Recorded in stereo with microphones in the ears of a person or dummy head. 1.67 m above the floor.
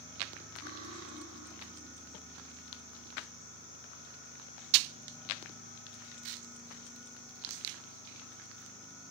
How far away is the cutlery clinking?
About 7 m.